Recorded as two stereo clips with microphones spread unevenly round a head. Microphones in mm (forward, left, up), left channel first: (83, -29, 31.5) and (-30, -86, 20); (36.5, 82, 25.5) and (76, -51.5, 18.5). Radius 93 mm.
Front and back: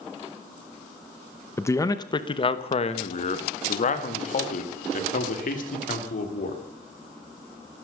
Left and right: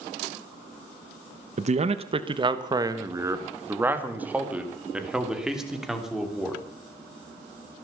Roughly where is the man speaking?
Ahead right.